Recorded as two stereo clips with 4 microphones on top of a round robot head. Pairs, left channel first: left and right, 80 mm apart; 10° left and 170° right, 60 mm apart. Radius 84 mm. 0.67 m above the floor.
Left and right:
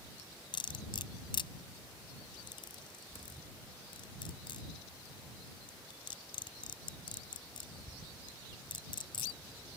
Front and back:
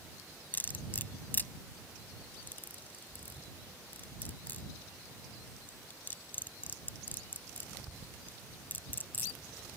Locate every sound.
0.5 s cutlery clinking: 70° left